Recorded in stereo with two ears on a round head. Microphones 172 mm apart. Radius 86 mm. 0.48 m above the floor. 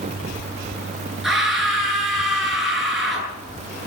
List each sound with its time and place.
1.2 s a scream: centre (ahead or behind), 9 m